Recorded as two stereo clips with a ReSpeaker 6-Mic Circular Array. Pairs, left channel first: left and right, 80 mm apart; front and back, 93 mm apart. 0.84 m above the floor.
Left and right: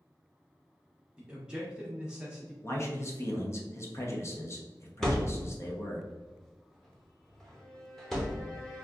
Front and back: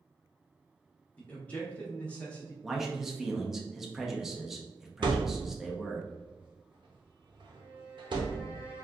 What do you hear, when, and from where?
1.2 s a man speaking: 40° right, 0.7 m
2.6 s a man speaking: 95° left, 0.6 m
5.0 s a thud: 175° left, 0.7 m
7.5 s a violin: 160° left, 1.3 m